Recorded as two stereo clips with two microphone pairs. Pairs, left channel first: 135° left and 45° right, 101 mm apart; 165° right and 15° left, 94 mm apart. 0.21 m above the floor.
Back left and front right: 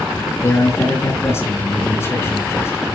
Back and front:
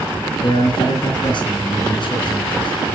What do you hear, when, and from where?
0.4 s a man speaking: 165° right, 3 m